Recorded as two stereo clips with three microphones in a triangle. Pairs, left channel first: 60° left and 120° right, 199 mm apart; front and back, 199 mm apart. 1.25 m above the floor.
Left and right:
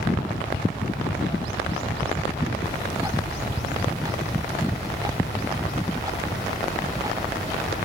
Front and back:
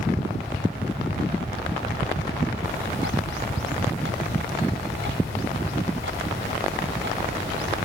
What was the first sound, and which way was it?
Ticking, 170° left.